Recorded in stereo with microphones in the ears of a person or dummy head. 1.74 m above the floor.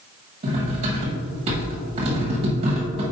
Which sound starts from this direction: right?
Cutlery clinking, at 0.4 s.